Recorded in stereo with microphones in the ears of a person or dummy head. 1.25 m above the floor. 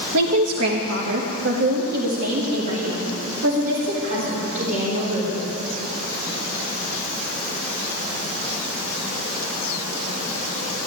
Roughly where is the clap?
I don't hear a clap.